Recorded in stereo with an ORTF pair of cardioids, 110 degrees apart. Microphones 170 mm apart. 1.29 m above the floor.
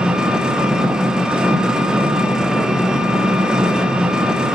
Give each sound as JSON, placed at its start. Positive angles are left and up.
{"t": 0.0, "sound": "an engine running", "azimuth_deg": -5, "distance_m": 0.9}